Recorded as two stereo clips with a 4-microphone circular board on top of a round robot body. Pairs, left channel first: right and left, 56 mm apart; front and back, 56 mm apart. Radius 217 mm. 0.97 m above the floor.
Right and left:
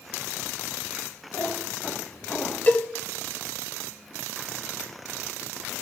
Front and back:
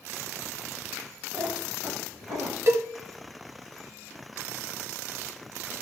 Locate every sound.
1.3 s a cat meowing: 140° right, 0.9 m; by 2.6 s 165° right, 1.6 m
2.7 s a cowbell: 150° right, 1.2 m